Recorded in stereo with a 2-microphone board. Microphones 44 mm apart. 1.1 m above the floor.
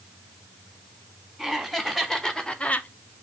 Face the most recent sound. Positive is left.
turn(degrees=40)  # may be behind; listen again after turning